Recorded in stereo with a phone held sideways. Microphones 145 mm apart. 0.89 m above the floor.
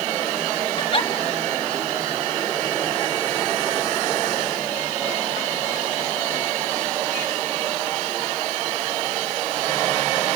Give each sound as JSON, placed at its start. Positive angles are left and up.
{"t": 0.8, "sound": "a giggle", "side_deg": 35, "distance_m": 1.3}